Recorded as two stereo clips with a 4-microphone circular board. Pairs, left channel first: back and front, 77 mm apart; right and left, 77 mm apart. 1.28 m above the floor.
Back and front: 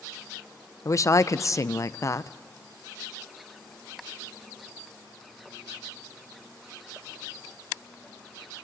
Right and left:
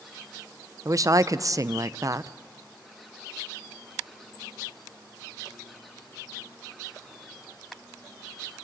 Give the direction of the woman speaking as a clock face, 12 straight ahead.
8 o'clock.